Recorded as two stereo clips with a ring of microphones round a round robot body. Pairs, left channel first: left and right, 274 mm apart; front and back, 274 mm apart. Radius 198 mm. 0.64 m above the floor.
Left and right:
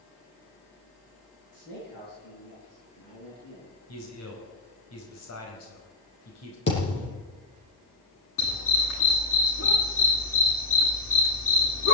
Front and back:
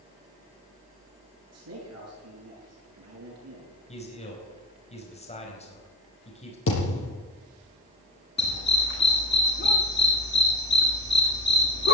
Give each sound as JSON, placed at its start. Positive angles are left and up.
{"t": 1.5, "sound": "a man speaking", "azimuth_deg": 150, "distance_m": 9.5}
{"t": 3.9, "sound": "a man speaking", "azimuth_deg": 65, "distance_m": 4.5}
{"t": 6.7, "sound": "a thud", "azimuth_deg": 40, "distance_m": 7.5}
{"t": 8.4, "sound": "a dog barking", "azimuth_deg": 50, "distance_m": 10.0}